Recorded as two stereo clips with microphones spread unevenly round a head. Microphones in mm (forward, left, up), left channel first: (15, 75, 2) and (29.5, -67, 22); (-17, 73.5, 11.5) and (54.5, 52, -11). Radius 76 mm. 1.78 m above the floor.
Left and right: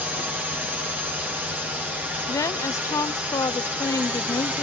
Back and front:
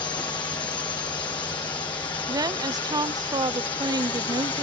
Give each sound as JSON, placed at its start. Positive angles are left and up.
{"t": 0.0, "sound": "a drone", "azimuth_deg": -165}
{"t": 2.3, "sound": "a woman speaking", "azimuth_deg": 25}